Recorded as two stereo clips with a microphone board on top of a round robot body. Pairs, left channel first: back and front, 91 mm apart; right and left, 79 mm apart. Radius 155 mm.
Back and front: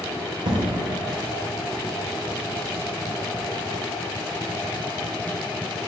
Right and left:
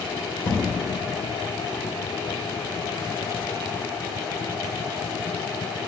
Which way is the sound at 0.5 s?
30° right.